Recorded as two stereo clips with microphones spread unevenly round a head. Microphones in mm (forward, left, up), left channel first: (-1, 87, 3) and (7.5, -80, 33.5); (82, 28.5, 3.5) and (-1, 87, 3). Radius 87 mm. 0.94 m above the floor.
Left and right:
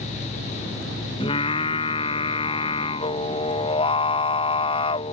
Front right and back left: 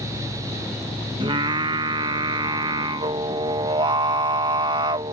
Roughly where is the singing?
Behind left.